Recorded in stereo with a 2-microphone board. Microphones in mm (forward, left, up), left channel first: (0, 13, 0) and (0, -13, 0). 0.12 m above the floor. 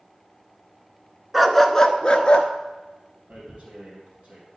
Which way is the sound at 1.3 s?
5° right (ahead or behind).